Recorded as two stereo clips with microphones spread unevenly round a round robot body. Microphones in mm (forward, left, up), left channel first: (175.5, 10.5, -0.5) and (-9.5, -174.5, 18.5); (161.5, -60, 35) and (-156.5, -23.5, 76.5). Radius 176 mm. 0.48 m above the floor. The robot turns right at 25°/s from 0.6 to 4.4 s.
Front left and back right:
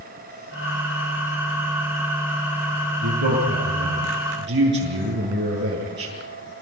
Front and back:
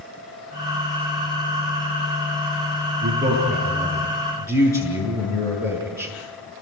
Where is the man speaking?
125° right, 7.5 m; by 6.1 s 90° right, 7.5 m.